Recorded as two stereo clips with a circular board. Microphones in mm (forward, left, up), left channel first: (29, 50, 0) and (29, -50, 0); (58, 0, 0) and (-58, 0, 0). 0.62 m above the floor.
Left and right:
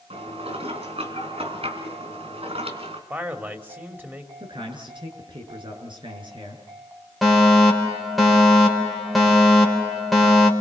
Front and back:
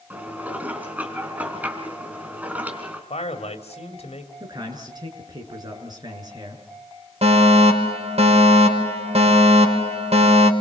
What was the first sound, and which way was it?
Dishes clattering, 105° right.